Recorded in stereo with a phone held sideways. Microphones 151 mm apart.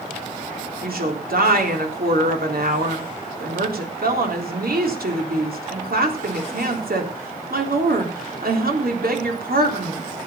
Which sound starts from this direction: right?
A woman speaking, at 0.8 s.